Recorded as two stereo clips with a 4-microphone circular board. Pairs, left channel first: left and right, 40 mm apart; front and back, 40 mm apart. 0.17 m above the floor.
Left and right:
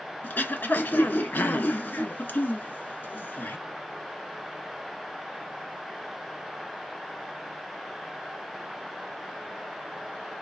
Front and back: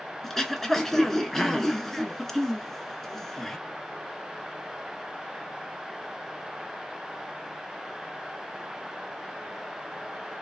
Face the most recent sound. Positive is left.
turn(degrees=80)